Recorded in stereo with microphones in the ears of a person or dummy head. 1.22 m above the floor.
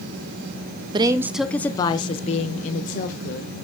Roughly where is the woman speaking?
Right.